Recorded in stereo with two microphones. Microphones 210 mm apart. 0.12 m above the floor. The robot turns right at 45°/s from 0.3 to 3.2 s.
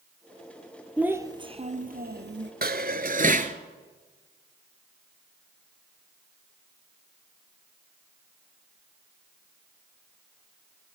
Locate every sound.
1.0 s a child speaking: 175° right, 1.5 m; by 2.5 s 105° right, 1.5 m
2.6 s dishes clattering: 50° right (ahead or behind), 1.1 m; by 3.5 s 40° right (ahead or behind), 1.1 m